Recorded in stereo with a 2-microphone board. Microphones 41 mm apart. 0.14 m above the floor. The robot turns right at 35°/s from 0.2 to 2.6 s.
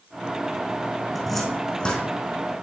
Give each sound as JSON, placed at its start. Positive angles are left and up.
{"t": 1.1, "sound": "a cupboard door", "side_deg": -5, "distance_m": 4.5}